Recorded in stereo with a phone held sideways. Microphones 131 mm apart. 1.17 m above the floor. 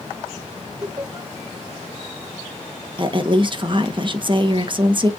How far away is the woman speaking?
About 1.2 m.